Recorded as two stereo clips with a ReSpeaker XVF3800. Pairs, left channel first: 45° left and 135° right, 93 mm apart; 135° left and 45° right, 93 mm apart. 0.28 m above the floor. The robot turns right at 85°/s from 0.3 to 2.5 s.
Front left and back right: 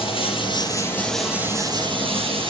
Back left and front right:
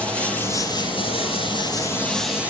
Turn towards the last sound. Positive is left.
turn(degrees=-115)